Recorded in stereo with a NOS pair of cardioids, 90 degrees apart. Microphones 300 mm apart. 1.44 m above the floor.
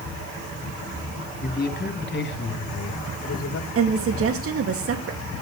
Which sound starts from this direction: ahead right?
A woman speaking, at 3.8 s.